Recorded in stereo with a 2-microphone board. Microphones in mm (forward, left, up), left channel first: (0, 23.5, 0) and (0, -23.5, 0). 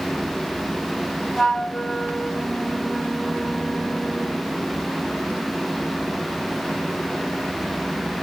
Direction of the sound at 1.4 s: 5° left (ahead or behind).